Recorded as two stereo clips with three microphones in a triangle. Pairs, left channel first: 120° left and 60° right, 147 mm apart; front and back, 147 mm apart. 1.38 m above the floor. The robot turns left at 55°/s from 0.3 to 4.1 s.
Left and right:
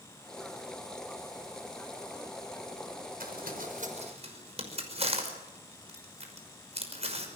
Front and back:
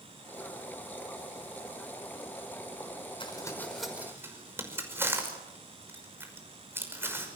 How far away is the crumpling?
About 5.5 m.